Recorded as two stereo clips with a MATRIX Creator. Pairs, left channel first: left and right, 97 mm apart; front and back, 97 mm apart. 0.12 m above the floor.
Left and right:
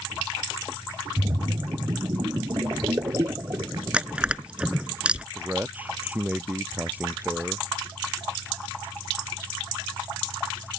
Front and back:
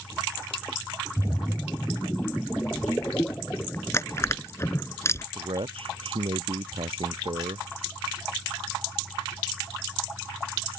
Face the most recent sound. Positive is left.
turn(degrees=-165)